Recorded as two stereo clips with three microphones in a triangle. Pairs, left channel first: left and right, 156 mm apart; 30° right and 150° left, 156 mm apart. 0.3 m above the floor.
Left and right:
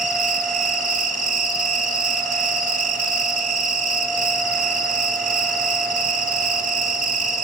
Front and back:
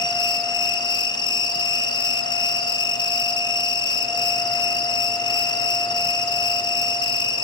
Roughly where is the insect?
Right.